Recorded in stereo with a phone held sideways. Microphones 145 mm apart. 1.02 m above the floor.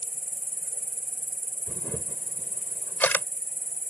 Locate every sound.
0.0 s an insect: 70° left (ahead or behind)
1.7 s a camera shutter: 10° left (ahead or behind)